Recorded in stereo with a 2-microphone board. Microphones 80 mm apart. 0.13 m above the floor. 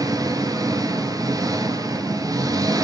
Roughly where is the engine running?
Right.